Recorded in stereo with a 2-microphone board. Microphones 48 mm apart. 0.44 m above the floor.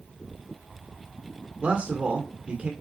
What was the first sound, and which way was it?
A man speaking, 30° right (ahead or behind).